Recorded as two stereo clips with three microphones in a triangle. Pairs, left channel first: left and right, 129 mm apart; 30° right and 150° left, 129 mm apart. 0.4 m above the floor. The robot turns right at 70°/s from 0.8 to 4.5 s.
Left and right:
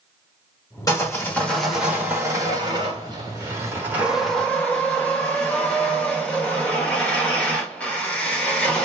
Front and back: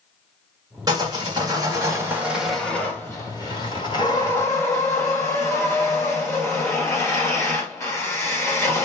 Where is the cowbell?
I don't hear a cowbell.